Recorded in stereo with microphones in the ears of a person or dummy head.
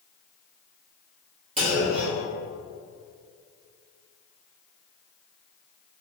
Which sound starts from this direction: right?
A clunk, at 1.6 s.